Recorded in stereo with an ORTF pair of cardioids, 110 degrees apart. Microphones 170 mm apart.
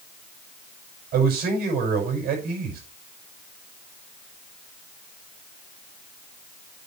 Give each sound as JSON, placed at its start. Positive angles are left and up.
{"t": 1.1, "sound": "a man speaking", "azimuth_deg": -65, "distance_m": 6.0}